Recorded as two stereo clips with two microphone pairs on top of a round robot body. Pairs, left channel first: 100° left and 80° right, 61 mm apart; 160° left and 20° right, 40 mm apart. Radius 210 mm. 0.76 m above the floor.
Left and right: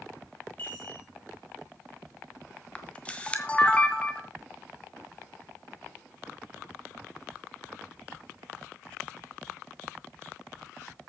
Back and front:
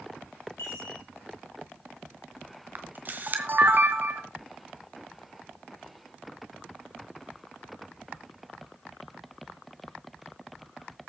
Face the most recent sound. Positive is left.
turn(degrees=25)